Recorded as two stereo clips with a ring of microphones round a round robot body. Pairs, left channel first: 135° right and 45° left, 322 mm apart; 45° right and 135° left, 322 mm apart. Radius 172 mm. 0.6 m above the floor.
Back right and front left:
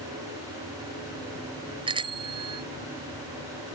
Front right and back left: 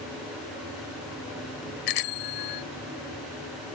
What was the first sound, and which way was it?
A bicycle bell, 30° right.